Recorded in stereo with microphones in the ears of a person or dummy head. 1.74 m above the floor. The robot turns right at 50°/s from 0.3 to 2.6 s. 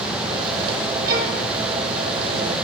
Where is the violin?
55° right (ahead or behind), 5 m; by 1.4 s 40° right (ahead or behind), 5 m.